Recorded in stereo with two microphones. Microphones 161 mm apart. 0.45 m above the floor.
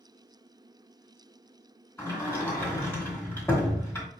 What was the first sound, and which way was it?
A sliding door, 15° left (ahead or behind).